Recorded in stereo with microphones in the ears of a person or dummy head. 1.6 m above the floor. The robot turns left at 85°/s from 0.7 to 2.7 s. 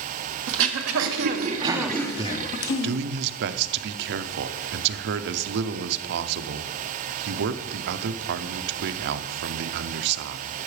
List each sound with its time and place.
0.5 s throat clearing: 80° right, 0.9 m; by 3.0 s 110° left, 0.9 m
2.2 s a man speaking: 15° right, 0.6 m; by 10.6 s 60° right, 0.6 m